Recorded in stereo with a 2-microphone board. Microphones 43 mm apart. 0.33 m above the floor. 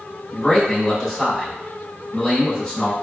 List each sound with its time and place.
0.3 s a man speaking: 15° left (ahead or behind), 0.9 m